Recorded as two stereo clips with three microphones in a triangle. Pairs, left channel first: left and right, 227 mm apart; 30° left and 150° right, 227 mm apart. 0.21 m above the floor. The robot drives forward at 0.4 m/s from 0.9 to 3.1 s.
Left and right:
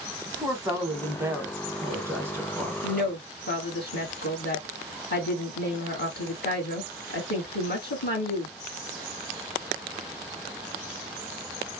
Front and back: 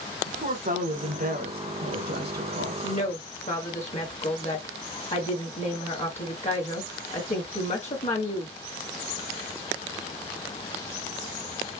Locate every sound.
0.3 s a woman speaking: 160° right, 1.3 m; by 2.7 s 170° right, 1.9 m
2.8 s a woman speaking: 75° left, 2.5 m; by 8.5 s 80° left, 2.5 m